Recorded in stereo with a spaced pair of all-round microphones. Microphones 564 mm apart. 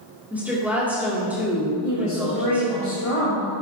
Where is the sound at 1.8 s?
70° left (ahead or behind), 1.5 m.